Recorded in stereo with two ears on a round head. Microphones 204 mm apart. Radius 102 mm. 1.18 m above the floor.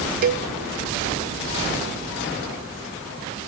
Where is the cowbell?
40° right (ahead or behind), 0.8 m.